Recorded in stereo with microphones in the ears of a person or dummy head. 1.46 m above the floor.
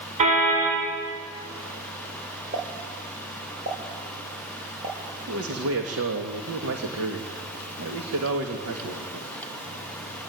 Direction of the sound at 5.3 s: 85° right.